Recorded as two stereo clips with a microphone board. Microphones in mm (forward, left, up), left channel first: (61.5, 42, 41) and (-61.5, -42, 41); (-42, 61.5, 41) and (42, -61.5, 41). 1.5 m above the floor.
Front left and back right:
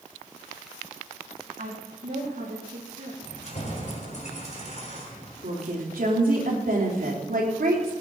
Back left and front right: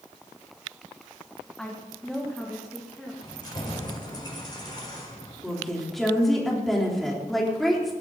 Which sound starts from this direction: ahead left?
Keys jangling, at 3.2 s.